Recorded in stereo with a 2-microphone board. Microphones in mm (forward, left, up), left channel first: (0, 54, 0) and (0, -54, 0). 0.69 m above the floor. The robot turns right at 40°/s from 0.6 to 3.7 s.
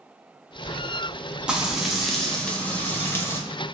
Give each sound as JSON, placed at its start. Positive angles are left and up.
{"t": 1.5, "sound": "frying", "side_deg": -10, "distance_m": 0.7}